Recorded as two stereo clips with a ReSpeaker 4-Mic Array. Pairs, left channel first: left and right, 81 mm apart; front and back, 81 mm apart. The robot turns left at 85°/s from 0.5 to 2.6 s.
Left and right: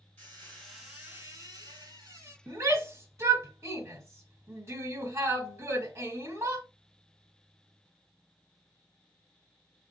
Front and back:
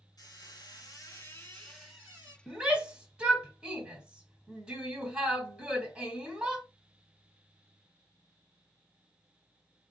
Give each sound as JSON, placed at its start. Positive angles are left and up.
{"t": 0.2, "sound": "a squeak", "azimuth_deg": 20, "distance_m": 1.6}
{"t": 2.5, "sound": "a shout", "azimuth_deg": -100, "distance_m": 1.4}